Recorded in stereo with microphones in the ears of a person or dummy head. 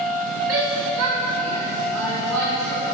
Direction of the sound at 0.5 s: 75° right (ahead or behind).